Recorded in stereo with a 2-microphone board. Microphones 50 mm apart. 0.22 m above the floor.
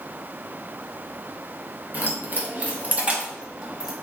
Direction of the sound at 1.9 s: 45° right (ahead or behind).